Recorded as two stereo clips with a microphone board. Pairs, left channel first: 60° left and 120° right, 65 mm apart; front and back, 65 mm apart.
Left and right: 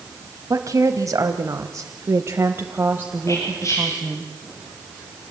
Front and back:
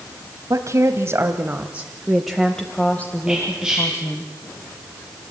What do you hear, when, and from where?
0.5 s a woman speaking: 150° right, 1.7 m; by 4.3 s 40° right, 2 m
3.3 s whispering: 100° left, 7 m